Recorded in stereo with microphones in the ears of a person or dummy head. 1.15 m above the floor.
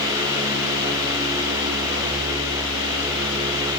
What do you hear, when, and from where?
Only background noise.